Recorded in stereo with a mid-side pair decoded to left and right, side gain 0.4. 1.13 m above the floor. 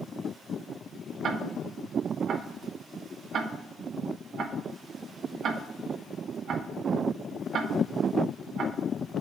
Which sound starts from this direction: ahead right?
Ticking, at 1.2 s.